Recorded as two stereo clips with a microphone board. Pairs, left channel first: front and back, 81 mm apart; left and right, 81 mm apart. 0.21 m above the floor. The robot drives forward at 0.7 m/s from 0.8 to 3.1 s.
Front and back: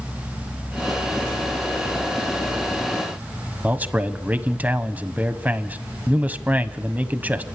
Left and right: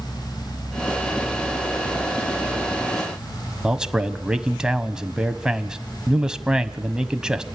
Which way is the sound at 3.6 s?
155° right.